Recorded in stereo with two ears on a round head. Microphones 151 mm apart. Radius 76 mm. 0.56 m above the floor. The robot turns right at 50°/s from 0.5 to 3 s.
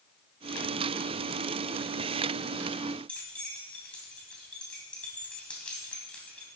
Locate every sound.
3.1 s keys jangling: 5° left (ahead or behind), 3 m